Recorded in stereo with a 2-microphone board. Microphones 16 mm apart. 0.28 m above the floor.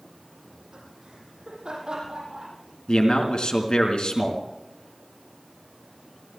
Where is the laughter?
70° right (ahead or behind), 9 m; by 2.5 s 60° right (ahead or behind), 10 m.